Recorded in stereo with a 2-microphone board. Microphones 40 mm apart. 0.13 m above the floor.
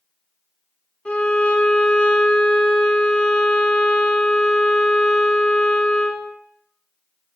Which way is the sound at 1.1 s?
30° left (ahead or behind).